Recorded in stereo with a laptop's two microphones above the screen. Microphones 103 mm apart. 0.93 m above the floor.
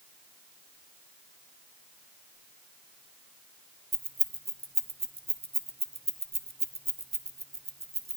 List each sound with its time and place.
3.9 s keys jangling: 80° right, 0.5 m